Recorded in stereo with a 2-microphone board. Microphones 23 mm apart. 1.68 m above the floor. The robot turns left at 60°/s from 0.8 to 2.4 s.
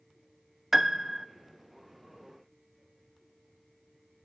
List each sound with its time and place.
0.7 s a piano: 15° right (ahead or behind), 0.6 m; by 1.3 s 25° right (ahead or behind), 0.6 m